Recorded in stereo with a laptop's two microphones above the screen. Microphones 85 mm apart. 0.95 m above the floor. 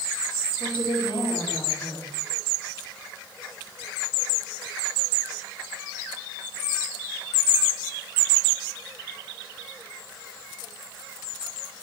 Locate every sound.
0.6 s a woman speaking: 75° left (ahead or behind), 3 m